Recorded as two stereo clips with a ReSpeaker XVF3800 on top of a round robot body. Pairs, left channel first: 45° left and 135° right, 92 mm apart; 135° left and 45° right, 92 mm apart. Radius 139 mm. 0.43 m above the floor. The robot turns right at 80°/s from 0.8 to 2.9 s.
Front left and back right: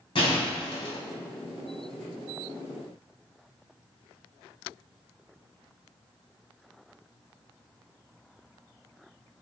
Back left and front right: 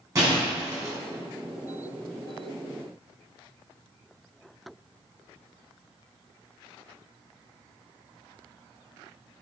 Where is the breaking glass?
10° left, 3 m; by 1.0 s 25° left, 3 m.